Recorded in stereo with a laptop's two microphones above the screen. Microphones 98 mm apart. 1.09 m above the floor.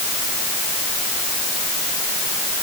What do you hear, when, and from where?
Only background noise.